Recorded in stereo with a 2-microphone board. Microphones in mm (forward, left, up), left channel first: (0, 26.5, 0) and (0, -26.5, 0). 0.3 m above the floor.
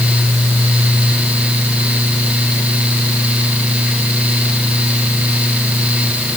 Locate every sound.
Only background noise.